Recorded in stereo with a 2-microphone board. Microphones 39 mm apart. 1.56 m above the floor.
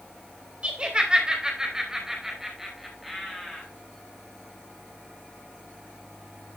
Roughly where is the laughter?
Right.